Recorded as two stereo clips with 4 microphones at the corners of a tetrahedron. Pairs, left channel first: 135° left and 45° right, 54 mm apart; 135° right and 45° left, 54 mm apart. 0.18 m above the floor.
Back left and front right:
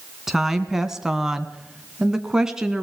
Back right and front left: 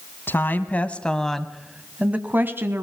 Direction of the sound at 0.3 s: 125° right.